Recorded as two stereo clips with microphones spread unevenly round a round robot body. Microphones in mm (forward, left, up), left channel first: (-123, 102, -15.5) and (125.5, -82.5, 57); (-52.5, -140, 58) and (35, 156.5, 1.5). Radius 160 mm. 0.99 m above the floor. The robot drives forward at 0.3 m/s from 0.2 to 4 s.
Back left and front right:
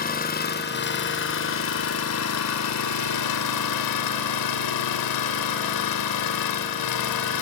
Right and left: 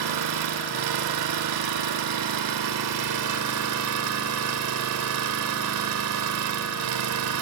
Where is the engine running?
80° left, 1.8 m; by 7.4 s 115° left, 1.9 m.